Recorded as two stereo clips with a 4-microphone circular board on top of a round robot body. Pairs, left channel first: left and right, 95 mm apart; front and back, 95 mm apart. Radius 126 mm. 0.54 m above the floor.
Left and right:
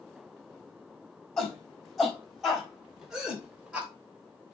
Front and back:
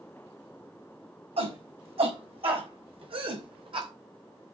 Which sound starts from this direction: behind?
A shout, at 1.4 s.